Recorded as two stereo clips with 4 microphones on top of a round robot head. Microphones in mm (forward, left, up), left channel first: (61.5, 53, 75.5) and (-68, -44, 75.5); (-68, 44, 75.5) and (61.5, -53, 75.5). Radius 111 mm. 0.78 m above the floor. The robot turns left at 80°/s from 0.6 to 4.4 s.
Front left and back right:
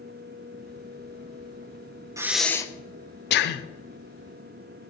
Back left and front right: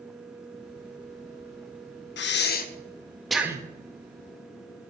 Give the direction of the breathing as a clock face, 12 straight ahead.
7 o'clock.